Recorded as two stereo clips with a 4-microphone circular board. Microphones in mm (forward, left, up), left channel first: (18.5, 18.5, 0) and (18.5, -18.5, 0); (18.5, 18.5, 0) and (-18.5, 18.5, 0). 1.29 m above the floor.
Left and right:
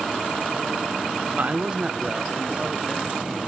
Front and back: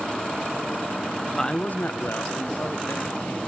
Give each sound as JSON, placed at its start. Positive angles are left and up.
{"t": 1.4, "sound": "a man speaking", "azimuth_deg": -75, "distance_m": 0.7}